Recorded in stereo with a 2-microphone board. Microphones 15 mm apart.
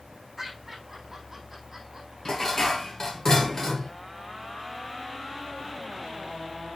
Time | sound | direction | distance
0.4 | laughter | 25° right (ahead or behind) | 5.5 m
2.2 | dishes clattering | 35° left (ahead or behind) | 1.6 m